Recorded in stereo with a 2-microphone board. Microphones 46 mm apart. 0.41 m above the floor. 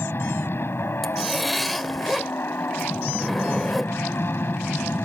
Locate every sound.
0.0 s an aircraft: 55° left (ahead or behind)
1.0 s a zipper: centre (ahead or behind)